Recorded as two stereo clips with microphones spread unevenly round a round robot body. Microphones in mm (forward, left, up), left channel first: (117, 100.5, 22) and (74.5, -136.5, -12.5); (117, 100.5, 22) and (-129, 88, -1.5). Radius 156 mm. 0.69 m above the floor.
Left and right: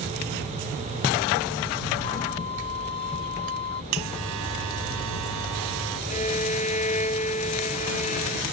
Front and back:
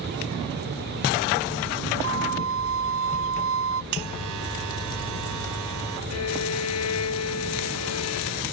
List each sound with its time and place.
2.0 s a violin: 150° left
3.9 s a buzzer: 140° right
6.1 s a violin: 20° left